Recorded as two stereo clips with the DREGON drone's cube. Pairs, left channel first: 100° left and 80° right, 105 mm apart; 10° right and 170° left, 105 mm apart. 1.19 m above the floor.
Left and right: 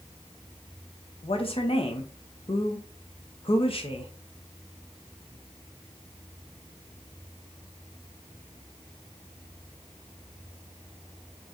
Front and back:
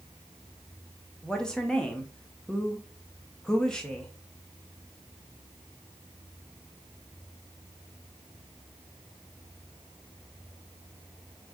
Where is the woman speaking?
70° left, 0.9 m.